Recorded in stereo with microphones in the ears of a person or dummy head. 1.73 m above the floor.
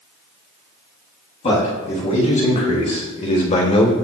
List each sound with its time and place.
1.4 s a man speaking: 35° left (ahead or behind), 4 m; by 3.9 s 30° left (ahead or behind), 1.6 m